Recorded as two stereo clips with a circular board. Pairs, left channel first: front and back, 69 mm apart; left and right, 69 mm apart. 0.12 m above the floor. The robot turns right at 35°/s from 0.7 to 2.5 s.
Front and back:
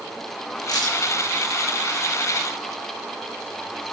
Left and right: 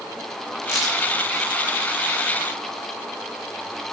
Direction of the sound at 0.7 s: 10° right.